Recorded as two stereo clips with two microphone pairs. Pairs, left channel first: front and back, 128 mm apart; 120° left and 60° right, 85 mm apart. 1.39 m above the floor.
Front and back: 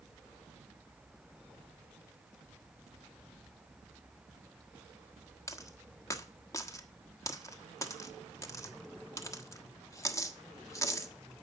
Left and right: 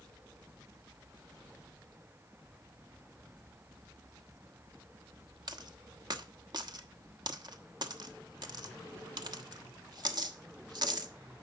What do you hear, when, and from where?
5.5 s a dropped coin: 60° right, 1.2 m